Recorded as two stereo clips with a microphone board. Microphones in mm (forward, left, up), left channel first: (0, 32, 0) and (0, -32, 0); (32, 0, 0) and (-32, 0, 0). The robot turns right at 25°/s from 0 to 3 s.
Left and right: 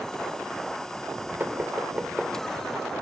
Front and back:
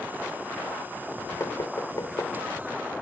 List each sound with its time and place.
1.4 s knocking: 35° right, 3 m; by 2.4 s 10° right, 3 m